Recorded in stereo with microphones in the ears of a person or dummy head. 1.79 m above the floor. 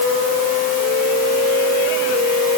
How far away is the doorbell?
No doorbell in this recording.